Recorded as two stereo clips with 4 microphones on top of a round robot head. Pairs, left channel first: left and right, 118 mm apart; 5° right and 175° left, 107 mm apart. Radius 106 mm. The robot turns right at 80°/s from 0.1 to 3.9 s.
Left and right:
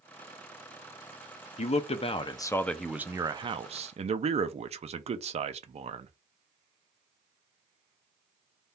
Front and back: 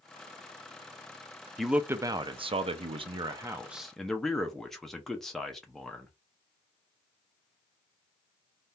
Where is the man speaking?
80° left, 0.6 m; by 6.1 s 95° right, 0.6 m.